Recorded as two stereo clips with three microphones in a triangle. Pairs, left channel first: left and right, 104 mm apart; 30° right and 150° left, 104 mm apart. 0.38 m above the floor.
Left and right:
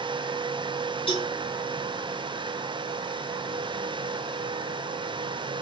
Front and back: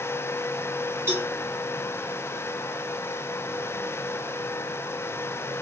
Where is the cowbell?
90° left, 2.5 m.